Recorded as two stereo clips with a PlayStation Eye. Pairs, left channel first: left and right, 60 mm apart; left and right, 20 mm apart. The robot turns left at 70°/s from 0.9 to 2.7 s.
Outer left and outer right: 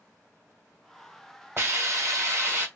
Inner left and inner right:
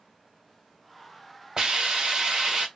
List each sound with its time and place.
1.6 s a hiss: 60° right, 1.7 m; by 2.7 s 140° right, 1.7 m